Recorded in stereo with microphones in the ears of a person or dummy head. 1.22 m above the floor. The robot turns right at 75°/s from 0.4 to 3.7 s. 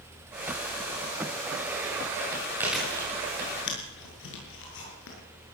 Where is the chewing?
15° right (ahead or behind), 7 m; by 5.2 s 65° left (ahead or behind), 7 m.